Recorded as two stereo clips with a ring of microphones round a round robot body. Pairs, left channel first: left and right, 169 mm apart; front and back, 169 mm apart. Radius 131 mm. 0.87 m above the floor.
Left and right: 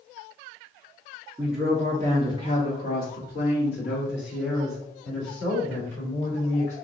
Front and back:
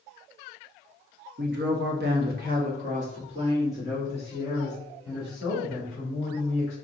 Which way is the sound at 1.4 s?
170° right.